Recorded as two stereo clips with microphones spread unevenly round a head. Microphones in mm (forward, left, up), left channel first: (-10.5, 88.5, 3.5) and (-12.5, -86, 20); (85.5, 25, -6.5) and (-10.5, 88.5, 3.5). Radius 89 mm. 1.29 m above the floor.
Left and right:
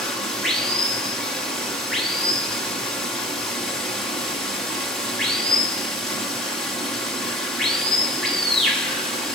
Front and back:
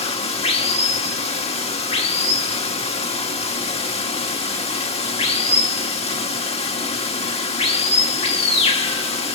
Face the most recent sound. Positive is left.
turn(degrees=0)